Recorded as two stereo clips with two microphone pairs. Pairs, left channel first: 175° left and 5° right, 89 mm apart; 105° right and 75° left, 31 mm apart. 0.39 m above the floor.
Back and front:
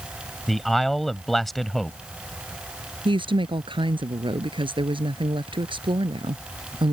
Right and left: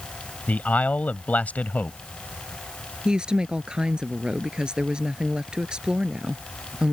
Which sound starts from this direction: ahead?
A woman speaking, at 3.0 s.